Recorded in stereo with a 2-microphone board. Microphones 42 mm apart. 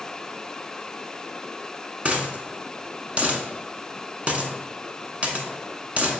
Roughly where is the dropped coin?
Right.